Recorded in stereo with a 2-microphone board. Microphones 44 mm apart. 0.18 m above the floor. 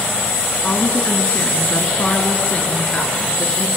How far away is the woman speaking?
About 1.9 m.